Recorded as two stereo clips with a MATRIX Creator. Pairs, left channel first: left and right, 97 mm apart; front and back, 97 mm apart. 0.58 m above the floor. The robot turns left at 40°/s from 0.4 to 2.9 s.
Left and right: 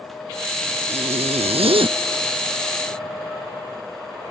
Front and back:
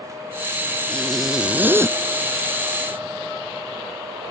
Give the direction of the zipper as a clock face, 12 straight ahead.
3 o'clock.